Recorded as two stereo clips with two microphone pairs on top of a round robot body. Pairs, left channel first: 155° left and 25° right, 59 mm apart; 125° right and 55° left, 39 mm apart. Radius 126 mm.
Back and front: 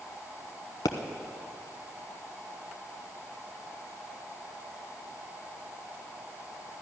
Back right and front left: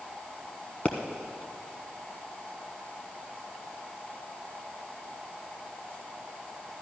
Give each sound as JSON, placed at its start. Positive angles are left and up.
{"t": 0.8, "sound": "a pop", "azimuth_deg": 170, "distance_m": 0.7}